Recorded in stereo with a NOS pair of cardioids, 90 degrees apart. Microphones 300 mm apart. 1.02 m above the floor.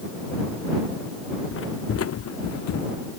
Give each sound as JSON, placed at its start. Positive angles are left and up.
{"t": 1.5, "sound": "footsteps", "azimuth_deg": 45}